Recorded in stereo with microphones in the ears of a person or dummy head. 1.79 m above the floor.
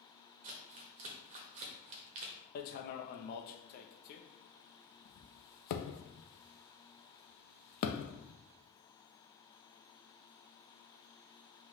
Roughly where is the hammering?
Left.